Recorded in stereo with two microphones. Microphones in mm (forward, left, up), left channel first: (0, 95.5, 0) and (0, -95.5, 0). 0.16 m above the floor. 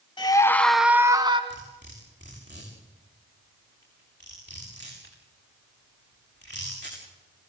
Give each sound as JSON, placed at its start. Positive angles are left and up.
{"t": 0.2, "sound": "a scream", "side_deg": 25, "distance_m": 1.2}
{"t": 1.5, "sound": "cutlery clinking", "side_deg": -65, "distance_m": 7.5}